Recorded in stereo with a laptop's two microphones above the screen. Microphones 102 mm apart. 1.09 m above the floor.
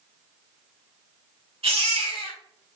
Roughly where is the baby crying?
Right.